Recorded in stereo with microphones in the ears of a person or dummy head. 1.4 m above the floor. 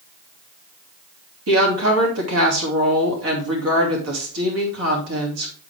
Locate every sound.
1.5 s a woman speaking: 85° right, 2.5 m